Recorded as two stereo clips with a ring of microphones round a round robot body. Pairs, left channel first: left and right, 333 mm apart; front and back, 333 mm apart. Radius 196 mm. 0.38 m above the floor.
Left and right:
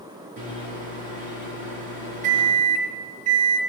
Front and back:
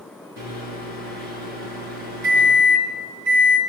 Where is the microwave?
160° right, 5 m.